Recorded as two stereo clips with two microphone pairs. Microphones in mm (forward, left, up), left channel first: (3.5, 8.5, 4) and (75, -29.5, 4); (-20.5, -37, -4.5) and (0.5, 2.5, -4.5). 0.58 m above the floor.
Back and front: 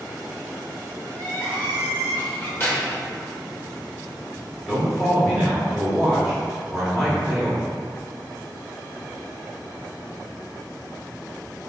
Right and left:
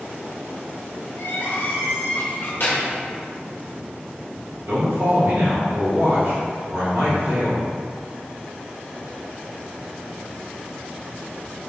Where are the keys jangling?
145° right, 1.4 m.